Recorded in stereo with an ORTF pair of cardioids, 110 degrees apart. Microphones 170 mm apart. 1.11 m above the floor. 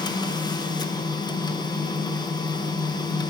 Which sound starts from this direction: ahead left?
A machine running, at 0.0 s.